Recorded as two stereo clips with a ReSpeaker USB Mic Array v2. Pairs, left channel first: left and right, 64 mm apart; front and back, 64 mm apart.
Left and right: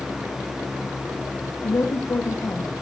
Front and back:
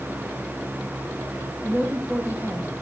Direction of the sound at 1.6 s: 125° left.